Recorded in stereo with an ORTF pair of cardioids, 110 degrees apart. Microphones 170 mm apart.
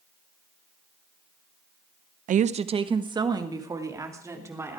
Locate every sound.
2.3 s a woman speaking: 50° right, 0.7 m; by 4.8 s 15° right, 3.5 m